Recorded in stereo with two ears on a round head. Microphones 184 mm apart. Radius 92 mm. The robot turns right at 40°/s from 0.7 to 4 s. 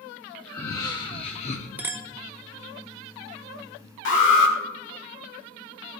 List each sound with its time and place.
0.5 s laughter: 25° left, 0.9 m; by 1.7 s 65° left, 0.9 m
1.8 s a clink: 10° right (ahead or behind), 0.6 m; by 2.1 s 15° right (ahead or behind), 0.6 m
4.0 s an alarm: 65° left (ahead or behind), 2 m